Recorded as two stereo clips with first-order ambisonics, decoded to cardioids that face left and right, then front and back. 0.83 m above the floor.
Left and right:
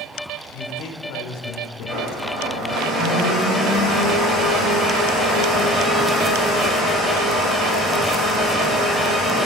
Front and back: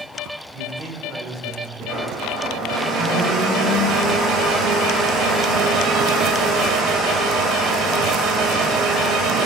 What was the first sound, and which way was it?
A man speaking, 115° left.